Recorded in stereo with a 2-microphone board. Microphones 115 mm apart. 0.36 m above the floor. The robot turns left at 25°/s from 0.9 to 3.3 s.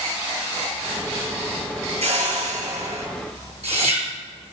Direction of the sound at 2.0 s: 75° right (ahead or behind).